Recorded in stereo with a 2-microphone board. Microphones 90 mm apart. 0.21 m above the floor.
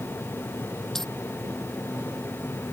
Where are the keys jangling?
5° left (ahead or behind).